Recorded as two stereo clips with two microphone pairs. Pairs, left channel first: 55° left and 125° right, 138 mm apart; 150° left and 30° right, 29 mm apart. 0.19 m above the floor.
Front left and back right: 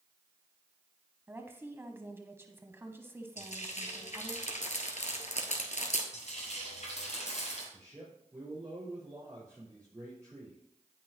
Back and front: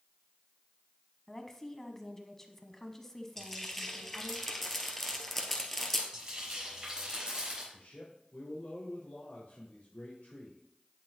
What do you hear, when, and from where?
1.3 s a woman speaking: 155° right, 1.0 m
3.4 s frying: 70° left, 1.6 m
6.1 s frying: 35° left, 5.5 m
7.7 s a man speaking: 170° left, 5 m